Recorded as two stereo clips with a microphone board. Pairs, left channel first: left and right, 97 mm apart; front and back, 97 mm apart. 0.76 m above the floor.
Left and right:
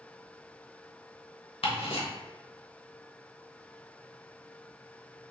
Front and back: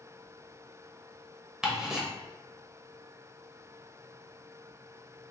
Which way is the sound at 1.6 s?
95° left.